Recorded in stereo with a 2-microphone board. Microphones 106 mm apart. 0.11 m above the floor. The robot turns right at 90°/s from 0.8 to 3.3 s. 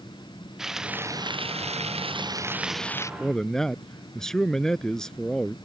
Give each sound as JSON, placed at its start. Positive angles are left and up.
{"t": 0.6, "sound": "frying", "azimuth_deg": -175}
{"t": 3.2, "sound": "a man speaking", "side_deg": 0}